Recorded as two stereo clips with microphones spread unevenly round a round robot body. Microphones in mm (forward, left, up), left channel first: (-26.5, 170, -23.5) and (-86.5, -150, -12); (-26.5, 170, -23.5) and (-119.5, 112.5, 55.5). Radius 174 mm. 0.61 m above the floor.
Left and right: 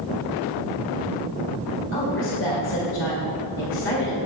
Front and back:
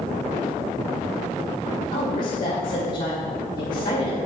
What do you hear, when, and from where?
1.9 s a woman speaking: 25° left, 2 m